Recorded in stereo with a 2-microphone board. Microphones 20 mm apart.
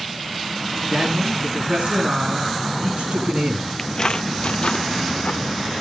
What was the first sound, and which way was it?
A man speaking, 70° right (ahead or behind).